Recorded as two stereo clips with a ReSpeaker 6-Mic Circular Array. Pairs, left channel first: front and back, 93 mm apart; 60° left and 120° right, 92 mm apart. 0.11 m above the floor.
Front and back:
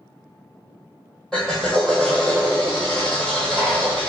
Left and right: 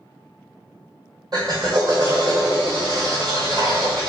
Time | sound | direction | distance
1.3 | a drill | 85° right | 1.6 m